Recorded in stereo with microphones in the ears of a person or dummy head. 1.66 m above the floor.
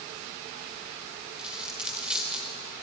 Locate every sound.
1.4 s a dropped coin: 5° right (ahead or behind), 1.5 m